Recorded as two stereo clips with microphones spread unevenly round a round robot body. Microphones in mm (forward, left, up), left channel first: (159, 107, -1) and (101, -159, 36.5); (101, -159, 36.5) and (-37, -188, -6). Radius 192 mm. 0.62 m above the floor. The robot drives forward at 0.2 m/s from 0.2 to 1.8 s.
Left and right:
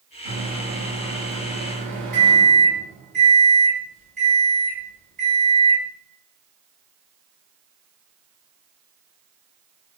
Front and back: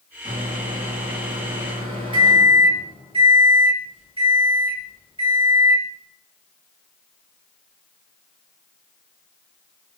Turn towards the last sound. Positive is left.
turn(degrees=-125)